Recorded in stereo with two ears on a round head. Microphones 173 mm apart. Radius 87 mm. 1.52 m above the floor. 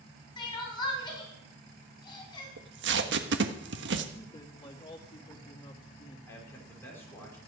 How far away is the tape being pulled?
About 1.4 m.